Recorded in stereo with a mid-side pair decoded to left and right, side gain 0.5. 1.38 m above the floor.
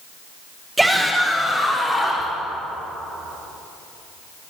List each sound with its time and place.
0.8 s a shout: 10° right, 1.1 m; by 2.3 s 20° left, 3 m